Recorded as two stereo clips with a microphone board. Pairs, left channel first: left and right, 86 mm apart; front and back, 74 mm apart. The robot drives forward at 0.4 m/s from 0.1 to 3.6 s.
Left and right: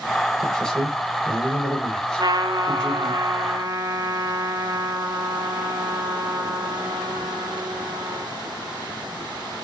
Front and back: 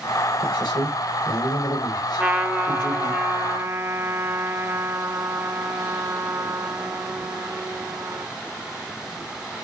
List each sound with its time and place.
0.4 s a man speaking: 10° left, 5 m; by 3.2 s 15° left, 4 m
2.2 s a trumpet: 105° right, 1.5 m; by 8.3 s 130° right, 1.8 m